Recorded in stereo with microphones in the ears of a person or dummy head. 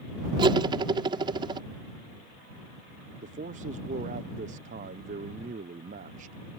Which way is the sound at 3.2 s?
40° right (ahead or behind).